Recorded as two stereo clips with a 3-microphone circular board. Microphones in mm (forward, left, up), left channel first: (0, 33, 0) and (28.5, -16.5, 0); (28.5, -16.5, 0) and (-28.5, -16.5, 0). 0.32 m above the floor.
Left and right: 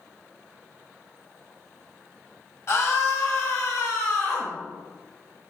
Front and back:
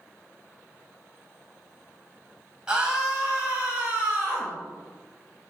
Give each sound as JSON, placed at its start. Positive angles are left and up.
{"t": 2.7, "sound": "a scream", "azimuth_deg": 110, "distance_m": 1.5}